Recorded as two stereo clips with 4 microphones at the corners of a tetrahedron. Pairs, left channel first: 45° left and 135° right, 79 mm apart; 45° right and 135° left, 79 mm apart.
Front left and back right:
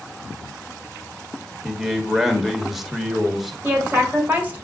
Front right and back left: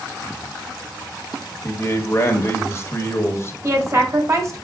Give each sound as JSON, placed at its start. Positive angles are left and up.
{"t": 1.6, "sound": "a man speaking", "azimuth_deg": -50, "distance_m": 1.2}
{"t": 3.6, "sound": "a woman speaking", "azimuth_deg": 165, "distance_m": 1.7}